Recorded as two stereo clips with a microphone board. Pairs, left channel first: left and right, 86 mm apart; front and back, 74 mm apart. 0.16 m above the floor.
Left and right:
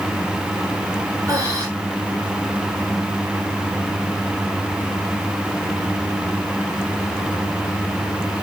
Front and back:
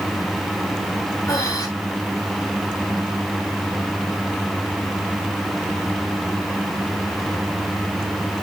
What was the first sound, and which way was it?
Breathing, 40° right.